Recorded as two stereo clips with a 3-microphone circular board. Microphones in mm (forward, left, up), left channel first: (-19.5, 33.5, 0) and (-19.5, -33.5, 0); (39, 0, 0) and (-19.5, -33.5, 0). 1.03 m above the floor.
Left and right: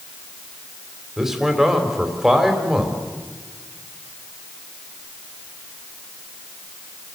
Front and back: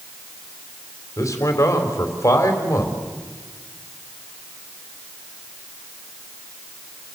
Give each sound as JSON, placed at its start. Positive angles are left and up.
{"t": 1.2, "sound": "a man speaking", "azimuth_deg": -5, "distance_m": 4.0}